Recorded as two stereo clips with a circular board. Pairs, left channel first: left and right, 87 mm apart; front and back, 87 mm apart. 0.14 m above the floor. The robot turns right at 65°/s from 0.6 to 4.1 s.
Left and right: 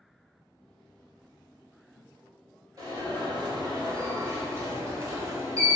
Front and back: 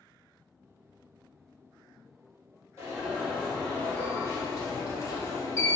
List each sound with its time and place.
2.8 s an alarm: 130° right, 1.6 m; by 5.8 s 45° right, 1.6 m